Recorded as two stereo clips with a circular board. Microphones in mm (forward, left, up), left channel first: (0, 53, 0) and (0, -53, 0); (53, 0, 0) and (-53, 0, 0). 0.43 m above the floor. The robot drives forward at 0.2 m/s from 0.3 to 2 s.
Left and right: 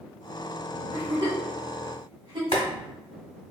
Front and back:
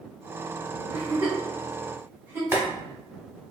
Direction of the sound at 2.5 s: 115° left.